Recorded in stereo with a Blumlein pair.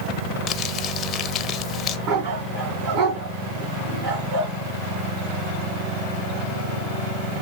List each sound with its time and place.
0.5 s crumpling: 30° left, 0.7 m
2.1 s a dog barking: 50° right, 4 m